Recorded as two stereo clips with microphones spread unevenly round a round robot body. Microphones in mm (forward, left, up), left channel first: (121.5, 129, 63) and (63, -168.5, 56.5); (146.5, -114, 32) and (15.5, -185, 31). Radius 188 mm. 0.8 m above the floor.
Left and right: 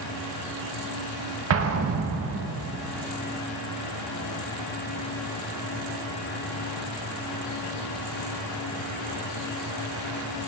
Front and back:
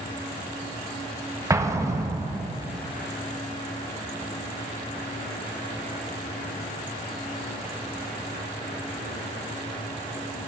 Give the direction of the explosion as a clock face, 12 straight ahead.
3 o'clock.